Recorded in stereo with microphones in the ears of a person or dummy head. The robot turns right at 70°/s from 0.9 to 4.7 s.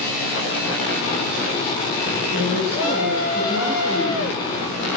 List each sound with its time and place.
2.3 s a woman speaking: 115° right, 3.5 m; by 4.9 s 55° left, 3.5 m